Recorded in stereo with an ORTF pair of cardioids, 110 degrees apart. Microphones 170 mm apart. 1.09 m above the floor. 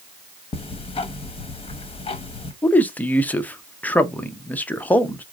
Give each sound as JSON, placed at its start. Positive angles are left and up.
{"t": 0.5, "sound": "ticking", "azimuth_deg": 30, "distance_m": 1.0}
{"t": 2.6, "sound": "a man speaking", "azimuth_deg": 10, "distance_m": 0.7}